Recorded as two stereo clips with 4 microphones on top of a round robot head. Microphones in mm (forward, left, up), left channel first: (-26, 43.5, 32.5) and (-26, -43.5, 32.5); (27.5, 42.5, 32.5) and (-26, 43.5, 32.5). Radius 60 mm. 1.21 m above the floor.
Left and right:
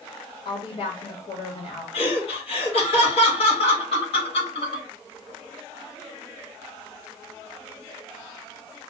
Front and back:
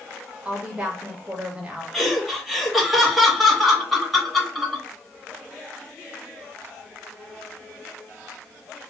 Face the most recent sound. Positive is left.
turn(degrees=90)